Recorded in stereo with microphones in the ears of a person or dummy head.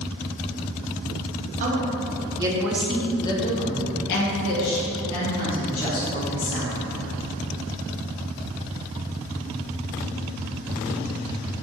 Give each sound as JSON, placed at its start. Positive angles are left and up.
{"t": 1.6, "sound": "a woman speaking", "side_deg": -40, "distance_m": 1.0}